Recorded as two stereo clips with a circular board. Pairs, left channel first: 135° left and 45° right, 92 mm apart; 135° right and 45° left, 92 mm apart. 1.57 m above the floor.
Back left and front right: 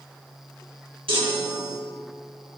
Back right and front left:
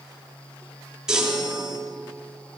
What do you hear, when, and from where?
1.1 s a chime: 40° right, 4 m